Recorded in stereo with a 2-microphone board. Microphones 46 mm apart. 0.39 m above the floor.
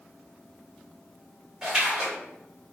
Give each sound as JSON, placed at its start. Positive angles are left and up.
{"t": 1.6, "sound": "a splash", "side_deg": -10, "distance_m": 1.1}